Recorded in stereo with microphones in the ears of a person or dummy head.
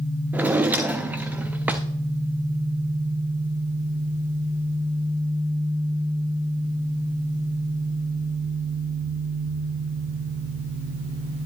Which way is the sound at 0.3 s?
5° right (ahead or behind).